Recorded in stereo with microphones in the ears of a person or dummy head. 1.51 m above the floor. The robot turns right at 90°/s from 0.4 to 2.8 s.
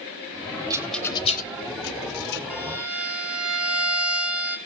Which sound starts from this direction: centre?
A rattle, at 0.7 s.